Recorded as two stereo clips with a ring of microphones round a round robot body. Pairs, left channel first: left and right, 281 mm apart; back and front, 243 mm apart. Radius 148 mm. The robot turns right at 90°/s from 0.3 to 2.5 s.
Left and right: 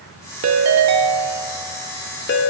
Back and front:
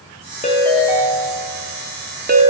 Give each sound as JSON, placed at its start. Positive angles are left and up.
{"t": 0.4, "sound": "a ringtone", "azimuth_deg": -120, "distance_m": 0.8}